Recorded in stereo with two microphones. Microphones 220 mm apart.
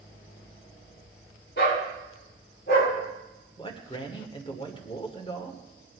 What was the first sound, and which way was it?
A dog barking, 50° left (ahead or behind).